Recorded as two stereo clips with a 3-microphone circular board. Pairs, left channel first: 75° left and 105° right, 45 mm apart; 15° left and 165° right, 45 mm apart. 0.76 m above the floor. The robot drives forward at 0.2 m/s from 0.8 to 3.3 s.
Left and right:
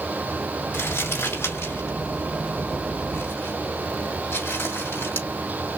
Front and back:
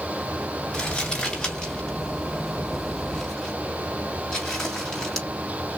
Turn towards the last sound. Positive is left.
turn(degrees=90)